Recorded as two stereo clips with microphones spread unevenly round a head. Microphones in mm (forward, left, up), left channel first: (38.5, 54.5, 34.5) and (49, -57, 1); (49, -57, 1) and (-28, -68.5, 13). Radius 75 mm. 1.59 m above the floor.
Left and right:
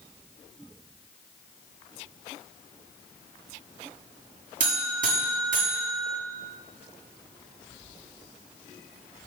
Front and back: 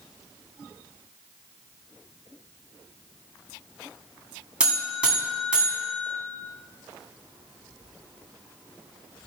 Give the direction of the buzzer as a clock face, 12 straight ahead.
3 o'clock.